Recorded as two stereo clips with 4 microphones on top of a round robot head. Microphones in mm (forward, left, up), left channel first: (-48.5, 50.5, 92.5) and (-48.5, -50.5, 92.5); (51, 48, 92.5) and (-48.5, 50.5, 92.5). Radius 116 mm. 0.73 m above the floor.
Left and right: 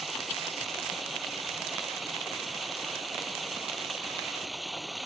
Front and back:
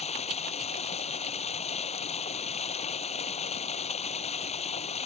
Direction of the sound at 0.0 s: Straight ahead.